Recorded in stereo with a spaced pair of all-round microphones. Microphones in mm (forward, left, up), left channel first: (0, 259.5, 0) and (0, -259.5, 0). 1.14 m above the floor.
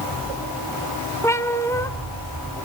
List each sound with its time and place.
1.2 s a cat meowing: 5° left (ahead or behind), 1.3 m